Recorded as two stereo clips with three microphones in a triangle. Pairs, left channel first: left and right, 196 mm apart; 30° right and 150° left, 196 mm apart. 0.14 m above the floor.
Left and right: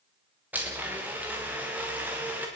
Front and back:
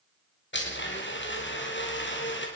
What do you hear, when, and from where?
0.5 s a blender: 10° right, 7 m